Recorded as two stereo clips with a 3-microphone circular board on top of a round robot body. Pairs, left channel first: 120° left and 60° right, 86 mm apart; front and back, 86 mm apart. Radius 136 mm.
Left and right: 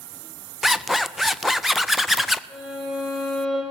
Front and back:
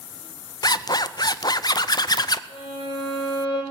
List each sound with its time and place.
0.6 s a zipper: 25° left, 0.5 m
2.5 s a violin: 25° left, 3 m